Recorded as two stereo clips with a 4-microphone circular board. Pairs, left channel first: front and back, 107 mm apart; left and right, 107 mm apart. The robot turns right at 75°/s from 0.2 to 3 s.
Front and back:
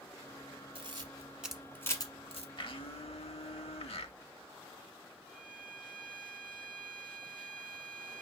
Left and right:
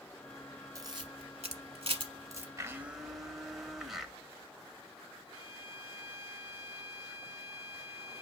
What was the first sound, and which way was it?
A camera shutter, 150° right.